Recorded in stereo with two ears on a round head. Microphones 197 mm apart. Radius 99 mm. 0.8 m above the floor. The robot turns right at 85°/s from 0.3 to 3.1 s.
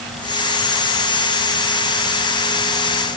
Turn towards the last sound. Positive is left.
No sound to turn to.